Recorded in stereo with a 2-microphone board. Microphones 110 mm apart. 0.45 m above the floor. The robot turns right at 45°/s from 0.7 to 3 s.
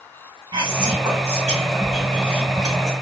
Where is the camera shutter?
I don't hear a camera shutter.